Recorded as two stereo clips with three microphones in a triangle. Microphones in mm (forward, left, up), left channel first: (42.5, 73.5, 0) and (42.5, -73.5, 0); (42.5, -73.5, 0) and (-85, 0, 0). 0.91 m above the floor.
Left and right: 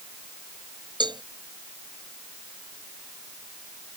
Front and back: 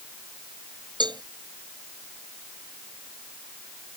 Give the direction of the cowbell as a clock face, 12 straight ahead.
5 o'clock.